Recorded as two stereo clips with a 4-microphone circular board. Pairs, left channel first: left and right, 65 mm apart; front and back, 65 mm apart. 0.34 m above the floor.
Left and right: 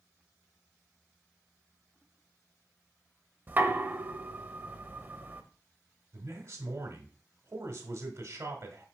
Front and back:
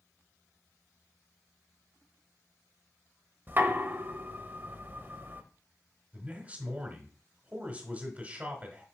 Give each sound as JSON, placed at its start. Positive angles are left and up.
{"t": 3.5, "sound": "knocking", "azimuth_deg": -140, "distance_m": 0.8}
{"t": 6.1, "sound": "a man speaking", "azimuth_deg": -120, "distance_m": 1.4}